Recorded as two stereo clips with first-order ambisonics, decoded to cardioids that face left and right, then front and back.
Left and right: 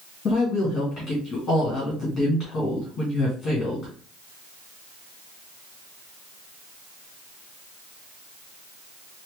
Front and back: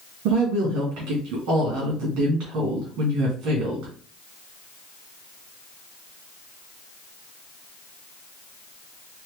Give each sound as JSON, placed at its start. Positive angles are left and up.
{"t": 0.2, "sound": "a woman speaking", "azimuth_deg": 160, "distance_m": 2.0}